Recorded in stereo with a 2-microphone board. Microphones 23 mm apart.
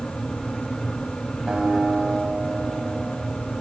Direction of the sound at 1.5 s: 40° right (ahead or behind).